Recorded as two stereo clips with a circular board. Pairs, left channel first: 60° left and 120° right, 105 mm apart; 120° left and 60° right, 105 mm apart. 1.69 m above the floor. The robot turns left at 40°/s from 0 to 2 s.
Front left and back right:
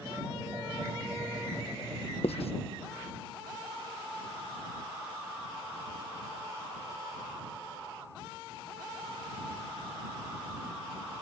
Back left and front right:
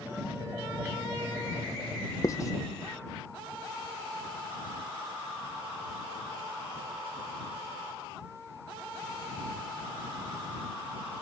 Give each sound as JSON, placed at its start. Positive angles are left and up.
{"t": 2.2, "sound": "writing", "azimuth_deg": 65}